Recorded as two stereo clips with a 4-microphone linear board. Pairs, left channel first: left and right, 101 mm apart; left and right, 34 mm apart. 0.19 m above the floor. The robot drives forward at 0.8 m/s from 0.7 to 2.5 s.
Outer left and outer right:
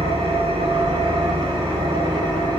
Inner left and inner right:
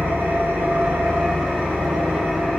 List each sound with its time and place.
0.0 s an engine running: 80° right, 1.8 m; by 2.6 s 50° right (ahead or behind), 2 m